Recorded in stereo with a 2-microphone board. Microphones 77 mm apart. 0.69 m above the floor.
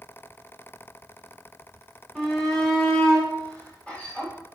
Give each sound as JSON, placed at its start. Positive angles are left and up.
{"t": 2.1, "sound": "a shout", "side_deg": 5, "distance_m": 2.5}